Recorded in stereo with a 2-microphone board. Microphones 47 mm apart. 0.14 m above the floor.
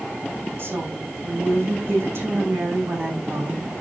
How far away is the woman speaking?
About 7 m.